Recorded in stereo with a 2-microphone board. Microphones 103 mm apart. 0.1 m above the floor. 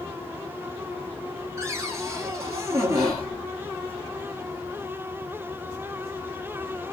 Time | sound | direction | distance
1.6 | a cupboard door | 30° right (ahead or behind) | 0.9 m
3.0 | whispering | 40° right (ahead or behind) | 1.6 m